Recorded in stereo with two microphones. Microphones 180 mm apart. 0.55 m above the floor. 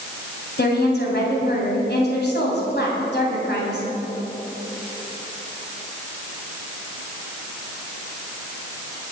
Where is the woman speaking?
70° left (ahead or behind), 3.5 m.